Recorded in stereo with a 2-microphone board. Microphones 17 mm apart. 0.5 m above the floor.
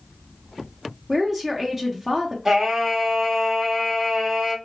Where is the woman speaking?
20° right (ahead or behind), 0.8 m.